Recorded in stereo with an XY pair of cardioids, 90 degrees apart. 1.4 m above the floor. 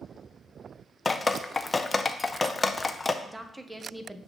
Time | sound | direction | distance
1.1 | dripping | 25° left | 0.5 m
3.2 | a woman speaking | 10° right | 0.9 m